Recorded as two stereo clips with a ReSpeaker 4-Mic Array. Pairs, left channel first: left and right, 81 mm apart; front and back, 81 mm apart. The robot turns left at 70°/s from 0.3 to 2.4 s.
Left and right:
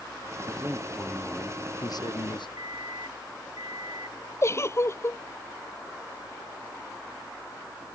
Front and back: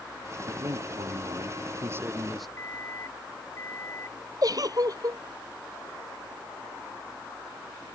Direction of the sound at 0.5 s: 135° right.